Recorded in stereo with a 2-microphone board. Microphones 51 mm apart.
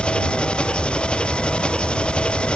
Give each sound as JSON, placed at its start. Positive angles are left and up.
{"t": 0.0, "sound": "an engine running", "side_deg": 20}